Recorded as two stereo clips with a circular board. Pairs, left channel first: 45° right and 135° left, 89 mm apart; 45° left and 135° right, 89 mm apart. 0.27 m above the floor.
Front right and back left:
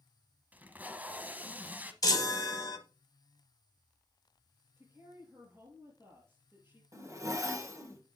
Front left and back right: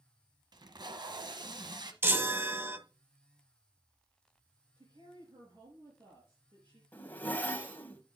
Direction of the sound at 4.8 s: 160° right.